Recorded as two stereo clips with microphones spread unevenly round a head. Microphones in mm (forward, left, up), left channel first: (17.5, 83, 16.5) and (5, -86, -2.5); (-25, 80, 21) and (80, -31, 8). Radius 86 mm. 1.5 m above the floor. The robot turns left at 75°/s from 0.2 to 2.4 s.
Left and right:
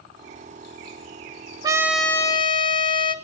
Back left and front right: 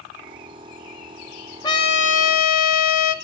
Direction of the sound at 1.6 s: 165° right.